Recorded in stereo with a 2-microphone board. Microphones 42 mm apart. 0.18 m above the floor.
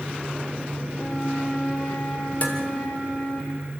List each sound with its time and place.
0.9 s a flute: 85° left, 8.5 m
2.4 s dishes clattering: 35° left (ahead or behind), 2.5 m